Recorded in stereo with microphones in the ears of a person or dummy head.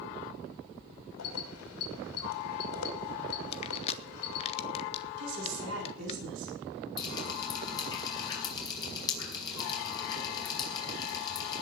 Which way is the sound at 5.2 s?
70° right (ahead or behind).